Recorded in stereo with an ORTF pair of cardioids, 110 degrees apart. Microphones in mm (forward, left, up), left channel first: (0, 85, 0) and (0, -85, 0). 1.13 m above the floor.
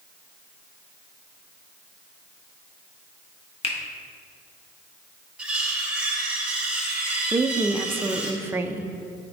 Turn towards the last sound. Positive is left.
turn(degrees=-15)